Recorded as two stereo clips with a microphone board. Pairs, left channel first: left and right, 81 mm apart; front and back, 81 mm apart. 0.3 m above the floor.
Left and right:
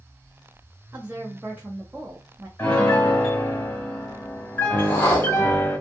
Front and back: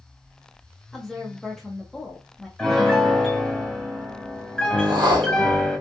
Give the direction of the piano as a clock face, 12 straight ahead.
10 o'clock.